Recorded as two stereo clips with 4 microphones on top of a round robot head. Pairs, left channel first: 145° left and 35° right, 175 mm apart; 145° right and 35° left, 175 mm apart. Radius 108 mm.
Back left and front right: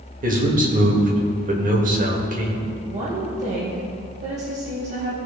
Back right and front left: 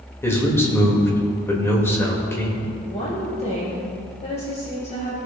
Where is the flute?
I don't hear a flute.